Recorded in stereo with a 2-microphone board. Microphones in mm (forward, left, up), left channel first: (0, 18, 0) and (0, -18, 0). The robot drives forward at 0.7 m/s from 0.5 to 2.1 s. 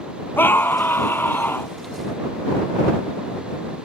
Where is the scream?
80° left; by 1.7 s 75° left (ahead or behind).